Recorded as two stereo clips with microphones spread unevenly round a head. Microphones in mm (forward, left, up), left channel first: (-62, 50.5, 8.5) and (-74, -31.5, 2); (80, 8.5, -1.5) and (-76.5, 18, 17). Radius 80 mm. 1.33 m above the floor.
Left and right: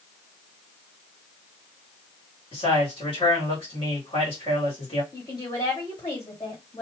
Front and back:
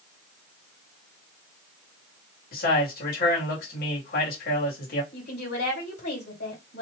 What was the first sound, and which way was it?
A man speaking, 30° left.